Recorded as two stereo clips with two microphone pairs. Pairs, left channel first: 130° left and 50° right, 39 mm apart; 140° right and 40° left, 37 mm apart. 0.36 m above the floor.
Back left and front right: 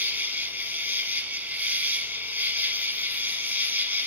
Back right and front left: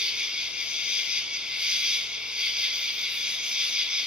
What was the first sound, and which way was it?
An insect, 25° right.